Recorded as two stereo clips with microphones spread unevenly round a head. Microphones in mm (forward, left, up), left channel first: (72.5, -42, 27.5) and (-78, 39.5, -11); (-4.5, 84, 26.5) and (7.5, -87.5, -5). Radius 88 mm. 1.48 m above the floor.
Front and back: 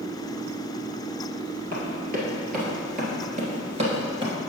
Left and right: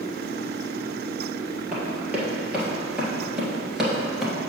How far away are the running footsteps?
About 2 m.